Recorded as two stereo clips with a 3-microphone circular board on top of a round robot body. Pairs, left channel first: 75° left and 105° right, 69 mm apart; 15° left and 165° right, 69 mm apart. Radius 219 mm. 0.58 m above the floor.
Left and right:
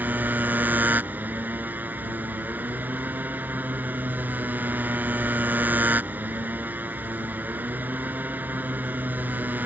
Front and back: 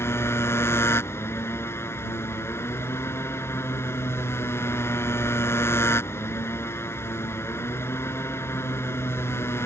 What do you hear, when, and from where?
0.0 s a motorcycle: 40° right